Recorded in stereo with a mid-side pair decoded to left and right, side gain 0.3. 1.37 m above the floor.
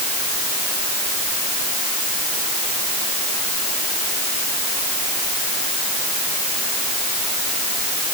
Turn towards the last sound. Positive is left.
No sound to turn to.